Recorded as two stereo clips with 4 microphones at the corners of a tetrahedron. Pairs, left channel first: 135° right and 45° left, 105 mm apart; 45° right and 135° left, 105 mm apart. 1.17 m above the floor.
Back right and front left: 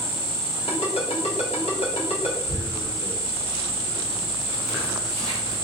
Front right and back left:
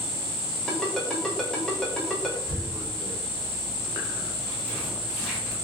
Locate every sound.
0.7 s a ringtone: 130° right, 0.8 m
2.5 s tearing paper: 130° right, 1.5 m